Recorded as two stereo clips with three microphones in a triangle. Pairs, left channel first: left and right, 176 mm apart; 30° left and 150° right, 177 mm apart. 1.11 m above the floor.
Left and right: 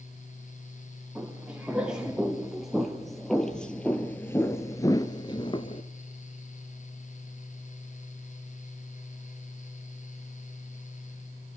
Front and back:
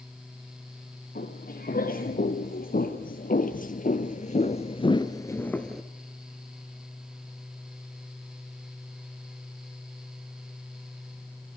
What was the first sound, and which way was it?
Footsteps, 5° right.